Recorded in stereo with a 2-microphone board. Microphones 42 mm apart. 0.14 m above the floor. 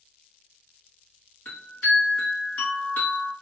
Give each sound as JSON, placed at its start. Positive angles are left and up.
{"t": 1.4, "sound": "a chime", "side_deg": 40, "distance_m": 2.0}